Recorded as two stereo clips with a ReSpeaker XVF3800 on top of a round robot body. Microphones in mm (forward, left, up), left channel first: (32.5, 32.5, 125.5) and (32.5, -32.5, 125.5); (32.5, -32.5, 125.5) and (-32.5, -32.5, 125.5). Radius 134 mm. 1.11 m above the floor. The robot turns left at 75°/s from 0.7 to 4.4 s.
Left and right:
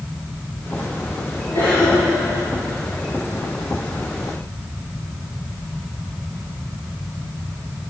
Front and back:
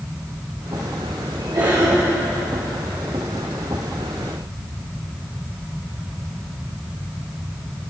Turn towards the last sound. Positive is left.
turn(degrees=-65)